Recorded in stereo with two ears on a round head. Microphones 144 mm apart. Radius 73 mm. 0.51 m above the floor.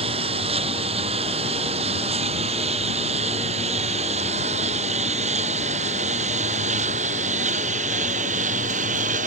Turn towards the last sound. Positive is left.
turn(degrees=-50)  # may be behind; listen again after turning